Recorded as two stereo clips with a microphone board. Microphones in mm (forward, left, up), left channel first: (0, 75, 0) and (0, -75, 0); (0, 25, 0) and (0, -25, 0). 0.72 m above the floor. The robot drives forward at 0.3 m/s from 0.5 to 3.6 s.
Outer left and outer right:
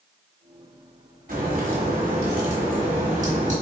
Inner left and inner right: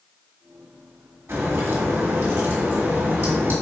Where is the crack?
75° right (ahead or behind), 1.7 m; by 3.5 s 55° right (ahead or behind), 2.0 m.